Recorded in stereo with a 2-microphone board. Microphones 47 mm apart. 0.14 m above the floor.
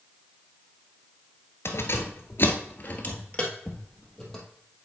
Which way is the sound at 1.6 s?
60° left (ahead or behind).